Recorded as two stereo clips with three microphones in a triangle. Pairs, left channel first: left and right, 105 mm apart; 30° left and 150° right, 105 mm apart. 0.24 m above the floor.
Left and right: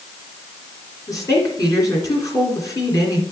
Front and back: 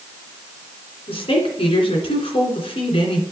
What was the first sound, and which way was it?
A woman speaking, 40° left.